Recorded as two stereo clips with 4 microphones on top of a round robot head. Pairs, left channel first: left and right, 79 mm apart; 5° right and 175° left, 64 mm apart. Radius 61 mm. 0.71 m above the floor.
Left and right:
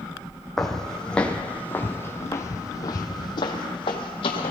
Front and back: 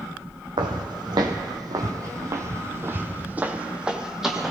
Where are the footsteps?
175° left, 1.7 m; by 4.5 s 90° left, 1.6 m.